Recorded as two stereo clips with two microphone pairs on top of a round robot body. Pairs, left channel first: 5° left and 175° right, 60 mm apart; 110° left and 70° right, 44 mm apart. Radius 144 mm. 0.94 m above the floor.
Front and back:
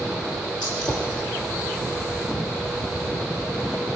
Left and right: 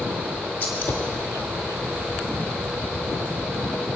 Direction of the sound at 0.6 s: 75° left.